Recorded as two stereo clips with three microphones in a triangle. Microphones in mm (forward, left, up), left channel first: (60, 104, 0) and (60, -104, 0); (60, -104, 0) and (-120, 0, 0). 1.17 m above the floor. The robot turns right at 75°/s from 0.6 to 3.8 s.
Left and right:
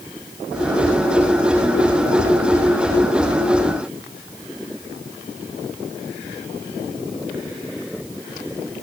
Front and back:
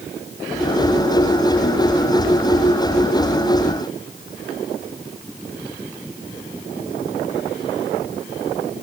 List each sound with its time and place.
Only background noise.